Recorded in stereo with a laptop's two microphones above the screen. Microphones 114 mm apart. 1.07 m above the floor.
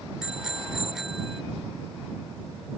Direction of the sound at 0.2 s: 5° right (ahead or behind).